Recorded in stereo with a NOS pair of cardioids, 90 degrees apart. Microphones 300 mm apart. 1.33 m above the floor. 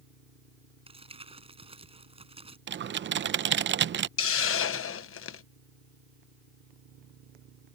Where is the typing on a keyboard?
40° right.